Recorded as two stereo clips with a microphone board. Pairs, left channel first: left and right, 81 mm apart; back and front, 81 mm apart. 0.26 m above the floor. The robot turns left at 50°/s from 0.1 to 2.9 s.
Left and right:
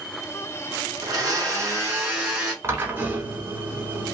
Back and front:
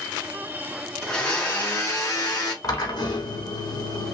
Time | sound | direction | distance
1.0 | a blender | 100° right | 2.5 m
2.6 | a drill | 145° right | 1.0 m